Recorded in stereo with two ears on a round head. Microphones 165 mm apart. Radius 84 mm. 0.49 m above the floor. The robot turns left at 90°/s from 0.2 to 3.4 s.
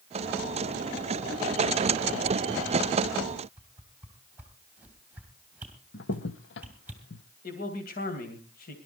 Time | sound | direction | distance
3.3 | a whoosh | centre (ahead or behind) | 3 m
5.9 | a crack | 65° left (ahead or behind) | 0.7 m
7.4 | a man speaking | 50° left (ahead or behind) | 2.5 m